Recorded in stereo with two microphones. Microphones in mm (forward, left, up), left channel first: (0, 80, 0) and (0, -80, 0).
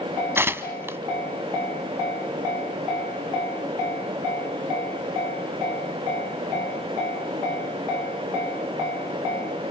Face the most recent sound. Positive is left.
turn(degrees=-15)  # may be behind; listen again after turning